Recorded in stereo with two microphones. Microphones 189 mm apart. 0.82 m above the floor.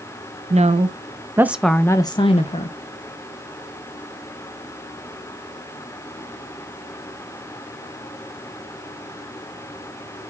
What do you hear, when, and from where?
0.5 s a woman speaking: 35° right (ahead or behind), 0.8 m; by 2.8 s 35° left (ahead or behind), 0.8 m